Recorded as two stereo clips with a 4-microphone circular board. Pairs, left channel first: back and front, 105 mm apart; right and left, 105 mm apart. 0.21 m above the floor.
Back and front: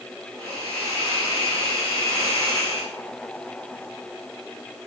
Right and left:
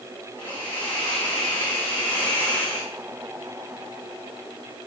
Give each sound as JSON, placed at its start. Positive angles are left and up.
{"t": 0.4, "sound": "a hiss", "azimuth_deg": -15, "distance_m": 4.0}